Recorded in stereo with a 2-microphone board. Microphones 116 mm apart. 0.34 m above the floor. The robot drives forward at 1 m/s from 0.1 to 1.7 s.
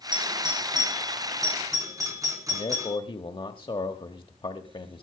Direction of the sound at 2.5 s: 45° left (ahead or behind).